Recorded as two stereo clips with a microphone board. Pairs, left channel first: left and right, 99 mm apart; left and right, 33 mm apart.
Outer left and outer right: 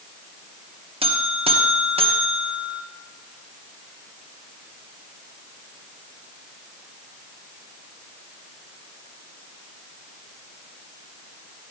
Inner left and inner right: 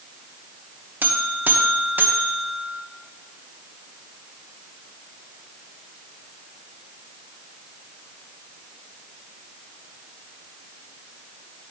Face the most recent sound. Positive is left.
turn(degrees=-75)  # may be behind; listen again after turning